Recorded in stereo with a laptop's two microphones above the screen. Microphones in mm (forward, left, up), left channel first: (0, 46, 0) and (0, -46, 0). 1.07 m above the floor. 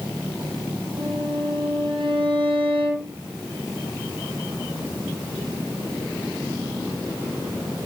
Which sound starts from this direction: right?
A violin, at 1.0 s.